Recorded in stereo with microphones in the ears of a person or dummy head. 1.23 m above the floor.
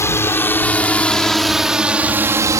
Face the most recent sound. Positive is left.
turn(degrees=-20)  # may be behind; listen again after turning